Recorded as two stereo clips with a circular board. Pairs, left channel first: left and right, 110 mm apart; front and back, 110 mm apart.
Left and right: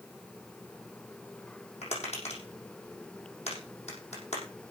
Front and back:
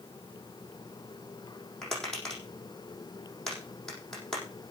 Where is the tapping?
85° left, 6 m.